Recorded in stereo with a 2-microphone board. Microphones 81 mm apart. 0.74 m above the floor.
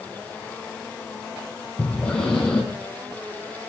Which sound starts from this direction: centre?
Breathing, at 1.8 s.